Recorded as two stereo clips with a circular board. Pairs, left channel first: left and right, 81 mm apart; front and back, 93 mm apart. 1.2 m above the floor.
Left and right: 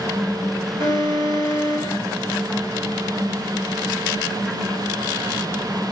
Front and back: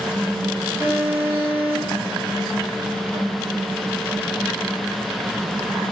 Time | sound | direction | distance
0.8 | an alarm | 105° right | 5 m